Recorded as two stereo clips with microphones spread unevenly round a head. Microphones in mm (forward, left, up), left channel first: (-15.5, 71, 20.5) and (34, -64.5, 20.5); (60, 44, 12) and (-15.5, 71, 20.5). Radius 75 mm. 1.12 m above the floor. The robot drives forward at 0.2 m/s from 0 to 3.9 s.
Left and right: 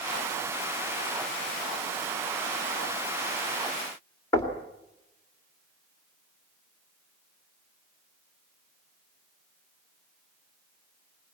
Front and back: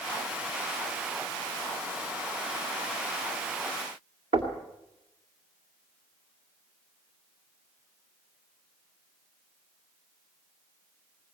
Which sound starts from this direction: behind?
Knocking, at 4.3 s.